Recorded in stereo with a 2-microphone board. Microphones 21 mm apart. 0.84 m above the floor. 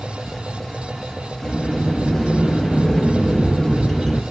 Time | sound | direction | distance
1.4 | a sliding door | 15° left (ahead or behind) | 3.5 m